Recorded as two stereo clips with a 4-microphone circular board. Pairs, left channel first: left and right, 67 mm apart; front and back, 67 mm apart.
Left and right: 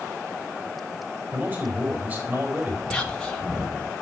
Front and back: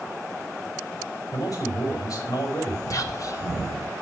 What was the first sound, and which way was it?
A man speaking, 30° right.